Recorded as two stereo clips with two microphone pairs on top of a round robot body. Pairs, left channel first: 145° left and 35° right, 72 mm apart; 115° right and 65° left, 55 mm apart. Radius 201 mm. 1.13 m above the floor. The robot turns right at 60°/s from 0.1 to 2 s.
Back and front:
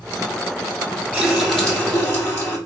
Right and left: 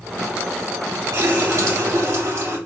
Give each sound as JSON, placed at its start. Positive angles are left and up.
{"t": 1.1, "sound": "a running tap", "azimuth_deg": 40, "distance_m": 2.0}